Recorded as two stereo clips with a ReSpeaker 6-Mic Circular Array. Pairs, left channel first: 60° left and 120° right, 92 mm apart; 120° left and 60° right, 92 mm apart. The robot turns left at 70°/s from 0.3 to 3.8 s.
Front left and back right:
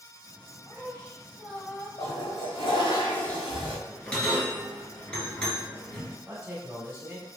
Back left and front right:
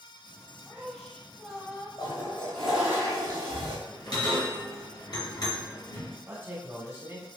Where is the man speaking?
75° right, 1.3 m.